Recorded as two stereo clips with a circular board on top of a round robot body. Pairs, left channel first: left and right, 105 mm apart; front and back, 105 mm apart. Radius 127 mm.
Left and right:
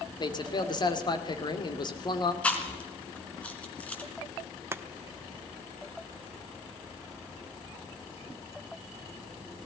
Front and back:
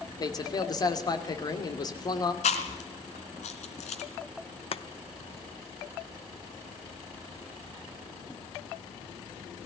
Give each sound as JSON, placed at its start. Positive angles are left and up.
{"t": 0.2, "sound": "a man speaking", "azimuth_deg": 50, "distance_m": 2.5}
{"t": 2.4, "sound": "chewing", "azimuth_deg": 10, "distance_m": 2.0}
{"t": 4.7, "sound": "chopping", "azimuth_deg": -25, "distance_m": 1.0}